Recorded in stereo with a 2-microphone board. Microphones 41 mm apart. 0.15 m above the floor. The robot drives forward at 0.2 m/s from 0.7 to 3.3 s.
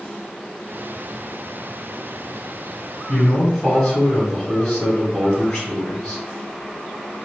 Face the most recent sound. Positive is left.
turn(degrees=15)  # may be behind; listen again after turning